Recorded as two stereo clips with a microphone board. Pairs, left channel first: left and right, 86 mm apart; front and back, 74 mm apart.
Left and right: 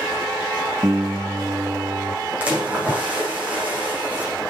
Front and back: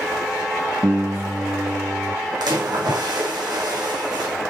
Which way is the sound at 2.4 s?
165° right.